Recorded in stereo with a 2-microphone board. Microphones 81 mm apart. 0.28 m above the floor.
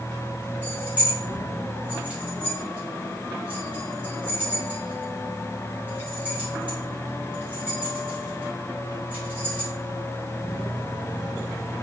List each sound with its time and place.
0.6 s keys jangling: 20° right (ahead or behind), 1.6 m